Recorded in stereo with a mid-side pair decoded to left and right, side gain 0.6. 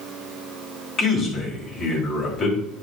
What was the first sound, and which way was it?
A man speaking, 40° left.